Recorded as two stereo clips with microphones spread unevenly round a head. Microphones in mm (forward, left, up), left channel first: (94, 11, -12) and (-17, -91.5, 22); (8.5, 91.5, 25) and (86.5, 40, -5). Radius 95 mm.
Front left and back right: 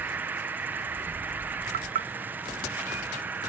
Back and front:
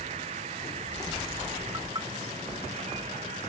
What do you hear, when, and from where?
0.0 s an insect: 60° right
1.7 s knocking: 110° right